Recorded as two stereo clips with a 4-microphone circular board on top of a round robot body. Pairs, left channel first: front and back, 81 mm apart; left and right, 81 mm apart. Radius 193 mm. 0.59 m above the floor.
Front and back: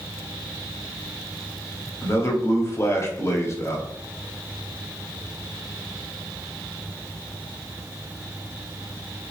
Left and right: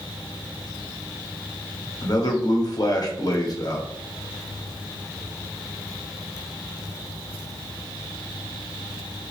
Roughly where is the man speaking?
Ahead left.